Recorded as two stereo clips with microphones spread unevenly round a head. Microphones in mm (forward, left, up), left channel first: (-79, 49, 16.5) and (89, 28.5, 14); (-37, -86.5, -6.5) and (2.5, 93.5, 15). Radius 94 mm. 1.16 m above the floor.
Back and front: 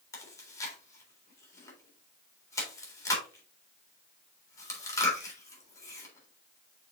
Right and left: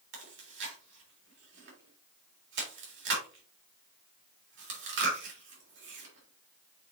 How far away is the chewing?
About 3.5 m.